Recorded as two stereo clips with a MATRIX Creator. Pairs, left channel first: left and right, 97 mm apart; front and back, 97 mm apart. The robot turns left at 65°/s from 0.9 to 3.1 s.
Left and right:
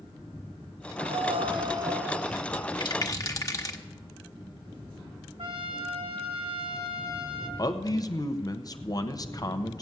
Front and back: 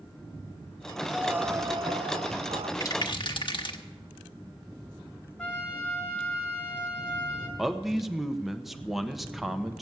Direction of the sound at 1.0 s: 90° right.